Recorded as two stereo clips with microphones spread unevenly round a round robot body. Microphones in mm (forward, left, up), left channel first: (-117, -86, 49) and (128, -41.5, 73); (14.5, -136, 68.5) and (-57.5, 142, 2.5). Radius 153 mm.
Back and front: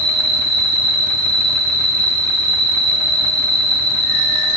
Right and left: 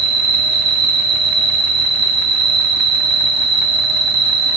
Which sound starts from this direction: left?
An insect, at 0.0 s.